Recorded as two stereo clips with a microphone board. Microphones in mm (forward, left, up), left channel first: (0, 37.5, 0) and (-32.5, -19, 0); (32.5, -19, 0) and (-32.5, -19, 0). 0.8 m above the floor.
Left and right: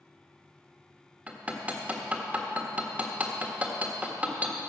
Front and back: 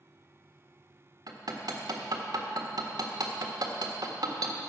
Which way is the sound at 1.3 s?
170° left.